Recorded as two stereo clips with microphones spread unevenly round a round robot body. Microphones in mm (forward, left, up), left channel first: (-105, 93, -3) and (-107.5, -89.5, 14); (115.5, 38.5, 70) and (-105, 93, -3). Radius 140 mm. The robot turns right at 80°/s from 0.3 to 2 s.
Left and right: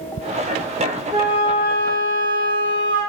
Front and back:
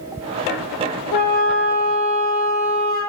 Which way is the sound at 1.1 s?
15° right.